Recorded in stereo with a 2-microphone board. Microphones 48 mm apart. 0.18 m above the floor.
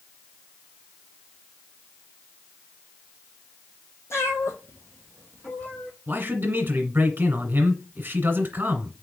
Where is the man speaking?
45° right (ahead or behind), 1.4 m.